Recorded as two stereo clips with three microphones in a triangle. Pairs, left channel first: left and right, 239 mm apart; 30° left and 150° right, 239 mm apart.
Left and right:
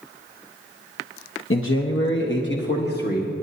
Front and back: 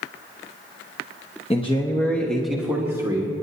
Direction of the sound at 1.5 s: 90° left.